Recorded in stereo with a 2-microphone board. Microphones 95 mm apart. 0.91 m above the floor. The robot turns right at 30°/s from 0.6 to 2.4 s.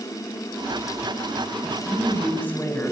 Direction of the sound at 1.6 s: 10° right (ahead or behind).